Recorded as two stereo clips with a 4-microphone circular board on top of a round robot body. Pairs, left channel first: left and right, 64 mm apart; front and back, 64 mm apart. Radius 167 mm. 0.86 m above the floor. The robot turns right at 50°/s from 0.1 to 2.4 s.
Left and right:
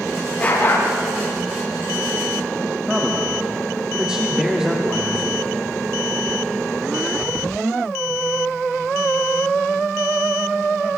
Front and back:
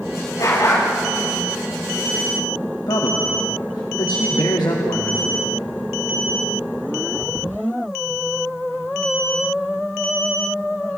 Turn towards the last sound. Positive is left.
turn(degrees=-15)